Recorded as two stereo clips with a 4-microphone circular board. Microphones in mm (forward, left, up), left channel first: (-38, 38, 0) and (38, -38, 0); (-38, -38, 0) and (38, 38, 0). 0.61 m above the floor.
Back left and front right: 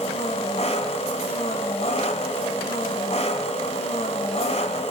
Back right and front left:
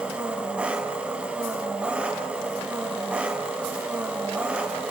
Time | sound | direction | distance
0.0 | an engine running | 125° left | 2 m